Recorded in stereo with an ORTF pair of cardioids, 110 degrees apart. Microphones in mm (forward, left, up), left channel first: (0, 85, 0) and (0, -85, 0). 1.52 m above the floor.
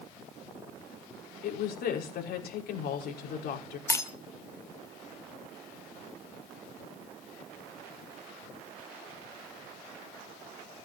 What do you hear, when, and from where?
1.4 s a woman speaking: 70° left, 5.5 m
3.9 s breaking glass: 20° left, 3 m